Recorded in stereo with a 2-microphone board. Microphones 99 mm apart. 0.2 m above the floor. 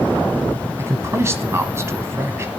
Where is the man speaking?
30° right (ahead or behind), 1.1 m.